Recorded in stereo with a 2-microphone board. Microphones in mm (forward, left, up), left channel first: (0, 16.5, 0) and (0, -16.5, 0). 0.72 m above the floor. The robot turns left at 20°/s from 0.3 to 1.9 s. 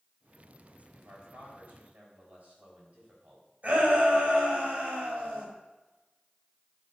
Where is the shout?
45° right (ahead or behind), 4.5 m.